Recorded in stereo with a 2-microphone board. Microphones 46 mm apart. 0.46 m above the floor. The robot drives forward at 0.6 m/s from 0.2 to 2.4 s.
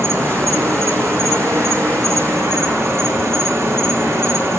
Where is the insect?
75° right (ahead or behind), 2.5 m.